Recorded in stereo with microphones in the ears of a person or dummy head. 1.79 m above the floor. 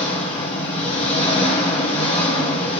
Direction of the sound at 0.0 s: 30° left (ahead or behind).